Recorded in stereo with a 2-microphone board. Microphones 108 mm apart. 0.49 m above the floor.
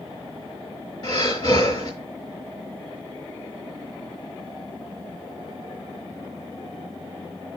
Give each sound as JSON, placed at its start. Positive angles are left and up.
{"t": 1.0, "sound": "breathing", "side_deg": 50, "distance_m": 4.5}